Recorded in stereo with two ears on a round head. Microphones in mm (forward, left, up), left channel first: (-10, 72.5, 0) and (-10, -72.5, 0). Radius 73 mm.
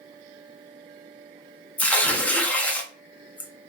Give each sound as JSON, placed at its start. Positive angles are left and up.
{"t": 1.8, "sound": "tearing paper", "side_deg": 10, "distance_m": 0.5}